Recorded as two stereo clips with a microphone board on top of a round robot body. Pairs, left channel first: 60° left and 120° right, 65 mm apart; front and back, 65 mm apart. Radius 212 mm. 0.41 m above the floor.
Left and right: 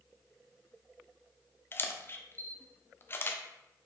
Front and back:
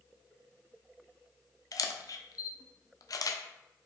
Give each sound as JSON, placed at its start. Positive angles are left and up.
{"t": 1.7, "sound": "a camera shutter", "azimuth_deg": 10, "distance_m": 0.6}